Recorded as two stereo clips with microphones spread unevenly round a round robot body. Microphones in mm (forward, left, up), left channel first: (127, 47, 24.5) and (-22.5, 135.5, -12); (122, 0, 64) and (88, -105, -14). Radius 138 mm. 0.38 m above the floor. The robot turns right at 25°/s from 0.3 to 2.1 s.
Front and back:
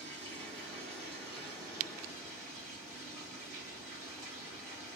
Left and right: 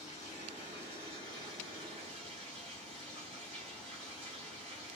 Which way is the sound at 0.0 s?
170° left.